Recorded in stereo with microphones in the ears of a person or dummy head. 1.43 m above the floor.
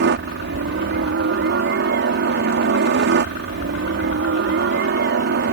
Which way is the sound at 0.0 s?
55° right (ahead or behind).